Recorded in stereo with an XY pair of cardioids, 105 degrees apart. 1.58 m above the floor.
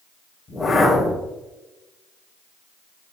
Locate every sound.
0.5 s a whoosh: 30° left, 3.5 m